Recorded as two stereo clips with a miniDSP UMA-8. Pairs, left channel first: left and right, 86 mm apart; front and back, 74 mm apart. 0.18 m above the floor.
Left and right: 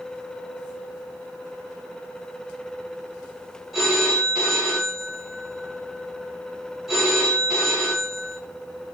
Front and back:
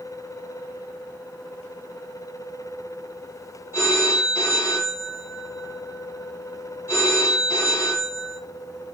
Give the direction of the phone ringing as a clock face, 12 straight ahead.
12 o'clock.